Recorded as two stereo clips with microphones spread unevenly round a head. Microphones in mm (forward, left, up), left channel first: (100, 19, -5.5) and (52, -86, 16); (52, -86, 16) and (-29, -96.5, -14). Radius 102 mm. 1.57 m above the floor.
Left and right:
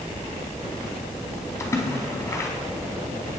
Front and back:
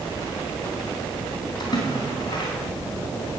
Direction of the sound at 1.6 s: Straight ahead.